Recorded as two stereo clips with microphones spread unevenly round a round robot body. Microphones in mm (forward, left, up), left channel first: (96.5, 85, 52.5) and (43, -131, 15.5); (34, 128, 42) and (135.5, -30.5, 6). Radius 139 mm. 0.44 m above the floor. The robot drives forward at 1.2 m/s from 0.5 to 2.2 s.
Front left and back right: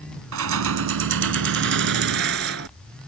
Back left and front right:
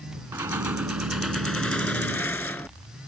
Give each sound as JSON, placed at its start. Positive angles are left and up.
{"t": 0.3, "sound": "keys jangling", "azimuth_deg": -140}